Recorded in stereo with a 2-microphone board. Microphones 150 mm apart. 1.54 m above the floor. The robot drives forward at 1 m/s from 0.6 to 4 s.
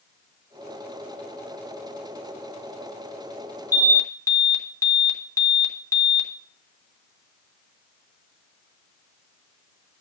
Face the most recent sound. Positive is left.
turn(degrees=20)  # may be behind; listen again after turning